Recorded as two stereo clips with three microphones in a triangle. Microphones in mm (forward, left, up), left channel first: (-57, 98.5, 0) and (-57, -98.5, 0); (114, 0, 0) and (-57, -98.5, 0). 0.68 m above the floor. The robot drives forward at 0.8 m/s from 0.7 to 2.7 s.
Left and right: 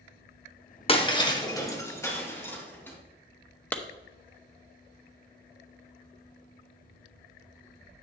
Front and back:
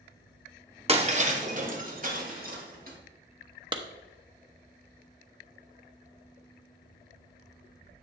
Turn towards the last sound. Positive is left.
turn(degrees=165)